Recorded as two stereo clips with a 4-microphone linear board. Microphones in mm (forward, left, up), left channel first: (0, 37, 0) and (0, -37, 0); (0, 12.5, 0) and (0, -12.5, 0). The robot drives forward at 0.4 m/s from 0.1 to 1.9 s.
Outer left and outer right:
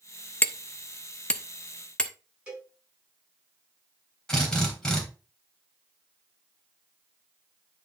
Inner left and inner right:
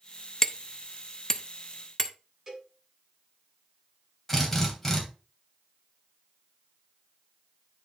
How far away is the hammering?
About 0.5 m.